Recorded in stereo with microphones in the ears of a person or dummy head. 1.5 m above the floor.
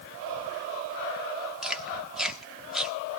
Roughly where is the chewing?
Centre.